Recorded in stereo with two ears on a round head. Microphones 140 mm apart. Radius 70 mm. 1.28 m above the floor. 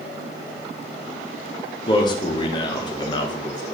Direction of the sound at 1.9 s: 30° left (ahead or behind).